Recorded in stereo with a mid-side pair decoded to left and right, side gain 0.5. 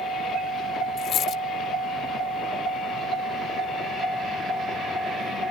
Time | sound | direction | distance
1.0 | a dropped coin | 60° left | ?